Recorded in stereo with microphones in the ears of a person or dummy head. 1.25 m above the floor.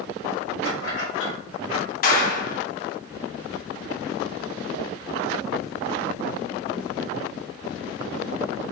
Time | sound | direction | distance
0.7 | keys jangling | 70° left (ahead or behind) | 3.5 m
2.0 | a clap | 55° left (ahead or behind) | 1.2 m